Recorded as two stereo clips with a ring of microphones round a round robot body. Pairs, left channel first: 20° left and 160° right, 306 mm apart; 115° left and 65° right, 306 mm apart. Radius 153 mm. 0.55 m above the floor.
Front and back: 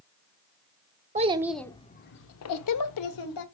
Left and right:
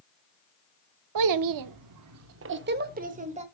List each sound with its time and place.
1.1 s a child speaking: 90° right, 0.6 m; by 3.5 s straight ahead, 1.3 m